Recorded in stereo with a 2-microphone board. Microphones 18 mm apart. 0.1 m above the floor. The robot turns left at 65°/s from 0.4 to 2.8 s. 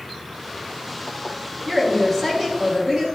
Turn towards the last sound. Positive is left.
turn(degrees=-70)